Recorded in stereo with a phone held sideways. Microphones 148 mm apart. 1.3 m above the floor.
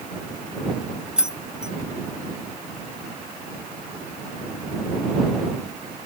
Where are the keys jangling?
5° right (ahead or behind).